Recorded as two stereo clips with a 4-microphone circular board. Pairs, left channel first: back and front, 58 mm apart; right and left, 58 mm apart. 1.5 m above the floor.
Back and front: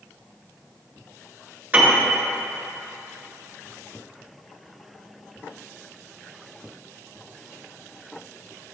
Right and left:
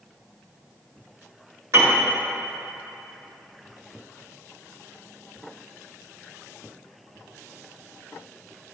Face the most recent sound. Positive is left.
turn(degrees=65)